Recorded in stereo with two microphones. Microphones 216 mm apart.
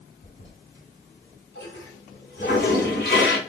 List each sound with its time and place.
0.2 s a toilet flushing: 45° left (ahead or behind), 2 m